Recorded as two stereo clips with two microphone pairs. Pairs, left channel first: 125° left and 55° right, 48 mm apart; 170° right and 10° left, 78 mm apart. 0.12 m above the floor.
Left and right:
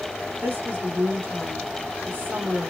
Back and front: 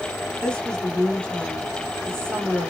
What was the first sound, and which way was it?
A woman speaking, 95° right.